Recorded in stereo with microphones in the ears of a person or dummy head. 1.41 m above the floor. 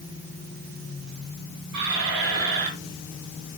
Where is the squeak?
60° right (ahead or behind), 5 m.